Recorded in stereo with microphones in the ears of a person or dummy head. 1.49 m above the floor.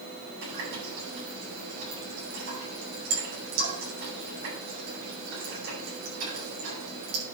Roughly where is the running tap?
Right.